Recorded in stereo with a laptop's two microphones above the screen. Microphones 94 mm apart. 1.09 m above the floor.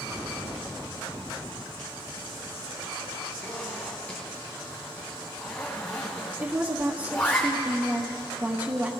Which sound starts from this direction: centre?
A zipper, at 3.4 s.